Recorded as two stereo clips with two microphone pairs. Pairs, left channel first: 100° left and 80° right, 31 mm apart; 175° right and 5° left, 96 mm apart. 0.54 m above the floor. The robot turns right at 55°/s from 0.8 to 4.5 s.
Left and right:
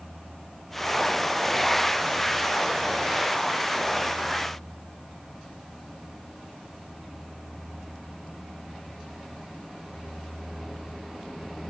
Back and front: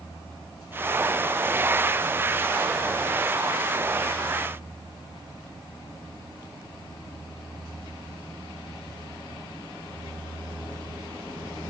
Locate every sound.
Only background noise.